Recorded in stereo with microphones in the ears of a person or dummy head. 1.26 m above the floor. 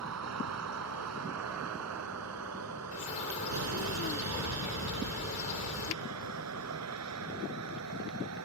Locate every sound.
0.0 s a vehicle: 80° right; by 8.5 s 85° right
2.9 s a bird: 35° left (ahead or behind)